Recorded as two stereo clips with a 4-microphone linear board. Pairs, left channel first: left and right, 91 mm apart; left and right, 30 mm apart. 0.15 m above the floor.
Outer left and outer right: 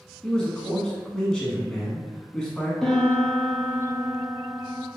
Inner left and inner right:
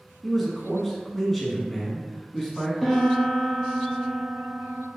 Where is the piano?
5° left (ahead or behind), 1.0 m.